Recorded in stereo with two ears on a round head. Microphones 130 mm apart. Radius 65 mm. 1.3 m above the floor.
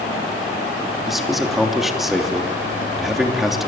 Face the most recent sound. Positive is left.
turn(degrees=0)  # may be behind; listen again after turning